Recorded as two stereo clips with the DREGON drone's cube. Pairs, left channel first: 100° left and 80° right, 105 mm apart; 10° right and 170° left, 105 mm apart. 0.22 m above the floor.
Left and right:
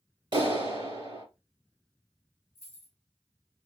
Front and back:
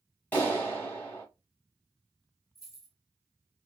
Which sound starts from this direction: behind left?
Keys jangling, at 2.5 s.